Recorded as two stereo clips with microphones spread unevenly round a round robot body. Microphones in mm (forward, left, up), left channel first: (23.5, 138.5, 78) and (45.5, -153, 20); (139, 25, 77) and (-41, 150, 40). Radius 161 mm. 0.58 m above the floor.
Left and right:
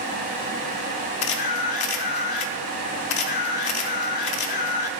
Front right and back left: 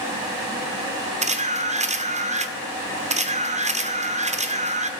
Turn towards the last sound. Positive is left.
turn(degrees=90)